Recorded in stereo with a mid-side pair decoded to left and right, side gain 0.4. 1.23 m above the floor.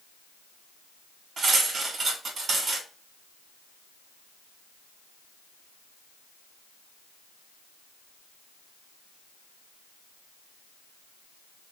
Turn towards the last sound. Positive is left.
turn(degrees=-50)